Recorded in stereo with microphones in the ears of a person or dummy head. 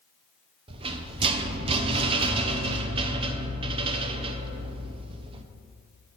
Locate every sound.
0.7 s a rattle: 30° right (ahead or behind), 0.6 m